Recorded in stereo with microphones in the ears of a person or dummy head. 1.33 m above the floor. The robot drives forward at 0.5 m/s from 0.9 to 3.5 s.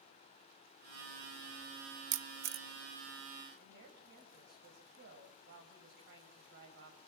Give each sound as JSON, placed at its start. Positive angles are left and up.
{"t": 2.1, "sound": "a camera shutter", "side_deg": -60, "distance_m": 0.5}
{"t": 3.6, "sound": "a woman speaking", "side_deg": -60, "distance_m": 6.5}